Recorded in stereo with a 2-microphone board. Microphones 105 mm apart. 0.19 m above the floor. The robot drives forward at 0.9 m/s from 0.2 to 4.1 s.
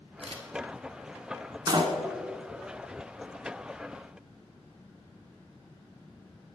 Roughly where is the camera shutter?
Right.